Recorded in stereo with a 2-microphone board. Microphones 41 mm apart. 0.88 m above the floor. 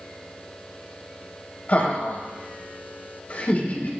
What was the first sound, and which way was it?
Laughter, 40° left (ahead or behind).